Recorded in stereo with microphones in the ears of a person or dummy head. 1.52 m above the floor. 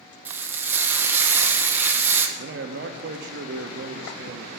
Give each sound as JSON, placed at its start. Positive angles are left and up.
{"t": 0.2, "sound": "frying", "side_deg": -15, "distance_m": 0.8}
{"t": 2.4, "sound": "a man speaking", "side_deg": -55, "distance_m": 0.7}